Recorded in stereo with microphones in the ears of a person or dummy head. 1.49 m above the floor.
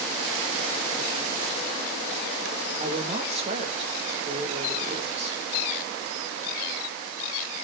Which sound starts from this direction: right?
A woman speaking, at 2.8 s.